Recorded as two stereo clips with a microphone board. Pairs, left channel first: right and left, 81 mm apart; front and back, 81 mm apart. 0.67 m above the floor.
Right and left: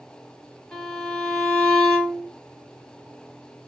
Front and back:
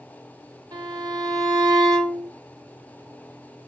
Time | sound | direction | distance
0.7 | a violin | 170° right | 1.0 m